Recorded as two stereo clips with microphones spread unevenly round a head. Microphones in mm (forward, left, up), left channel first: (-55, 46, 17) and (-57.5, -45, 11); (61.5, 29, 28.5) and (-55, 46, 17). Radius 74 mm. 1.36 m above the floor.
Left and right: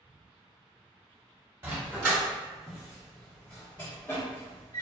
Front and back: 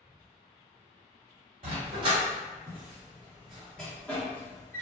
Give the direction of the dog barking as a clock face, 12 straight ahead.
5 o'clock.